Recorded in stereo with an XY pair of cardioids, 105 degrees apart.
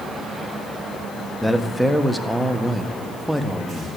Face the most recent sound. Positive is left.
turn(degrees=0)